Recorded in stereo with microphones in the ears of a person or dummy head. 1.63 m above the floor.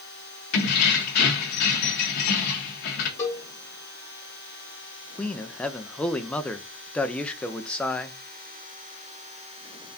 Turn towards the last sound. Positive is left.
turn(degrees=10)  # may be behind; listen again after turning